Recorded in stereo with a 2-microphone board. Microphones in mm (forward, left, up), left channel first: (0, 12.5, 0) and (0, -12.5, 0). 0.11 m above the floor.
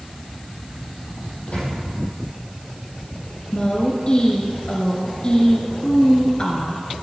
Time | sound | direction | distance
1.5 | a microwave | 55° left (ahead or behind) | 4 m
3.5 | a woman speaking | 35° left (ahead or behind) | 2 m